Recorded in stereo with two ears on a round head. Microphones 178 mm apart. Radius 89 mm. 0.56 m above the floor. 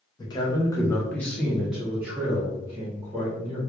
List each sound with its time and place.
0.2 s a man speaking: 20° left (ahead or behind), 0.8 m; by 3.6 s 20° right (ahead or behind), 1.4 m